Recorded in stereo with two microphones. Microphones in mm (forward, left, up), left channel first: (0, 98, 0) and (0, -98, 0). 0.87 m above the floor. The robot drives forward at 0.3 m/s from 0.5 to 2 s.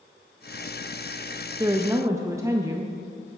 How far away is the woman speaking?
About 0.5 m.